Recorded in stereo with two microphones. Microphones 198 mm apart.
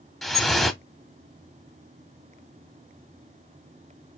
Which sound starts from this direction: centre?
Dripping, at 0.2 s.